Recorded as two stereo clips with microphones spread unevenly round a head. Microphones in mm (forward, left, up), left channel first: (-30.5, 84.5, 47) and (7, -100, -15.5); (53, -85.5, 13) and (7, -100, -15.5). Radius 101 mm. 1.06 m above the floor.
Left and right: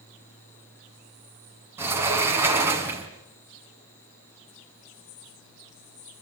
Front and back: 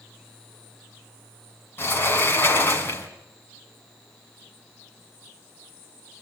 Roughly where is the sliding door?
Ahead.